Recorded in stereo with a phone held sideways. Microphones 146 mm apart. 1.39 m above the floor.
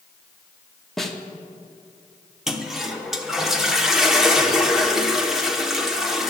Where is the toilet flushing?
5° right (ahead or behind), 1.0 m.